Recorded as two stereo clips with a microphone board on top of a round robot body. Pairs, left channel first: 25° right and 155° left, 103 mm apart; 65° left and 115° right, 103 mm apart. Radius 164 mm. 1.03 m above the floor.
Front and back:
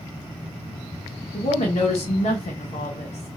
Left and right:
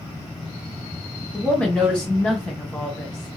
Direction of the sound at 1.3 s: 15° right.